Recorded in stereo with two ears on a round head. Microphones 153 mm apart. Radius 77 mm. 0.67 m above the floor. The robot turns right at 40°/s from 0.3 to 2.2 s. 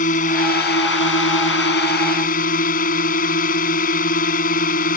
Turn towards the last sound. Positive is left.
turn(degrees=125)